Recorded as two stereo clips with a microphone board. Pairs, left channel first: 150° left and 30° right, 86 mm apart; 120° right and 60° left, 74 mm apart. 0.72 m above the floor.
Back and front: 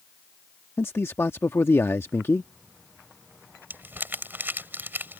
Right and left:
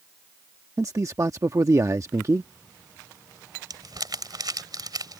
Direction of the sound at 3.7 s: 35° left.